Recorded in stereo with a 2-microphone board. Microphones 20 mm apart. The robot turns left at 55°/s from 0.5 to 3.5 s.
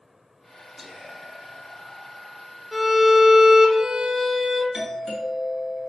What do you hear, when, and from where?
0.8 s whispering: 25° right, 1.4 m; by 2.5 s 120° right, 1.4 m
2.7 s a violin: 10° right, 0.9 m; by 4.6 s 55° right, 0.9 m
4.7 s a doorbell: 35° right (ahead or behind), 1.9 m